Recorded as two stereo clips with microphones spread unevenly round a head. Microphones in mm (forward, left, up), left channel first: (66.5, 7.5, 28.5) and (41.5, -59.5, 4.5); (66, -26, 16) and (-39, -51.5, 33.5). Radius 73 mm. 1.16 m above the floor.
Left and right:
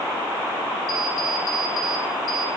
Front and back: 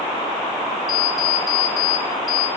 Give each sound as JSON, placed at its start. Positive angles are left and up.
{"t": 0.9, "sound": "an alarm clock", "azimuth_deg": 80, "distance_m": 2.5}